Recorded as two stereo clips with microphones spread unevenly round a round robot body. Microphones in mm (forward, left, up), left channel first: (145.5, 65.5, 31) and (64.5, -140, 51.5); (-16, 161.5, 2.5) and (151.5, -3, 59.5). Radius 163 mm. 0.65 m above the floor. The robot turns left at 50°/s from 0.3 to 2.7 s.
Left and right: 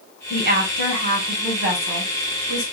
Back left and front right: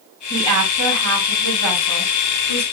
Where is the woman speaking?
60° right, 2.5 m; by 2.6 s 175° right, 2.5 m.